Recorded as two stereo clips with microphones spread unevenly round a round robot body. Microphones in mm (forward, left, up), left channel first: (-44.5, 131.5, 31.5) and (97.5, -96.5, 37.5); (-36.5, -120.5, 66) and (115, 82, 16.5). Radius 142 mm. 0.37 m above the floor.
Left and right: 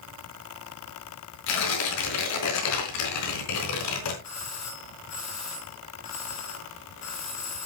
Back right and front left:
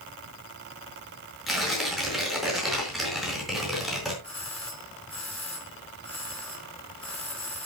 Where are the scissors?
I don't hear scissors.